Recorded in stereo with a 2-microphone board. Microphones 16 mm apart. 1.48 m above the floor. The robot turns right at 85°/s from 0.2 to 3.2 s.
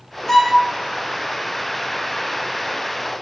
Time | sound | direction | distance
0.3 | a violin | 25° left (ahead or behind) | 0.6 m